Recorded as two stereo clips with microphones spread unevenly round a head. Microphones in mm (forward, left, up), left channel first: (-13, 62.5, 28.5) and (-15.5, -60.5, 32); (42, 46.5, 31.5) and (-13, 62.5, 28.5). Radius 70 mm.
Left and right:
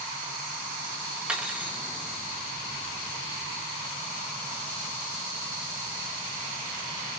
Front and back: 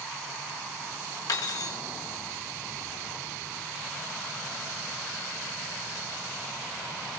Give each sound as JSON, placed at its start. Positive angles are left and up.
{"t": 1.3, "sound": "cutlery clinking", "azimuth_deg": -10, "distance_m": 0.8}